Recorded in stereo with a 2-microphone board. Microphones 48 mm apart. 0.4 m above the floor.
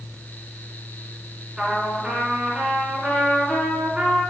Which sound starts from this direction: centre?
A trumpet, at 1.6 s.